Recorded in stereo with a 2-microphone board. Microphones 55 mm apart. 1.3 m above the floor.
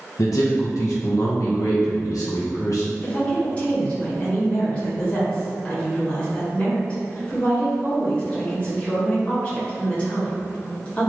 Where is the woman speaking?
20° left (ahead or behind), 1.9 m.